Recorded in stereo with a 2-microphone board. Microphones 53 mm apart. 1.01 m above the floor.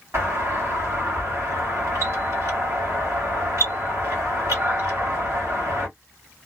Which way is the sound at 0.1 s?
70° right (ahead or behind).